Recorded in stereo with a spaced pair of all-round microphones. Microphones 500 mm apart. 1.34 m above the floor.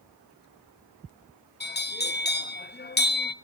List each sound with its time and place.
1.6 s a bell: 20° left (ahead or behind), 0.5 m